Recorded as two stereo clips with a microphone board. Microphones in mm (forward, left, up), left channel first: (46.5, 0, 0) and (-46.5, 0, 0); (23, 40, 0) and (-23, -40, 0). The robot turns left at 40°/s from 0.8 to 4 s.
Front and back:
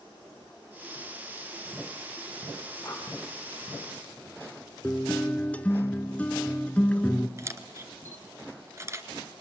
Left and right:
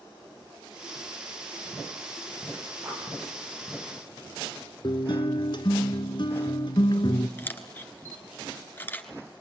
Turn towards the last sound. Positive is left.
turn(degrees=125)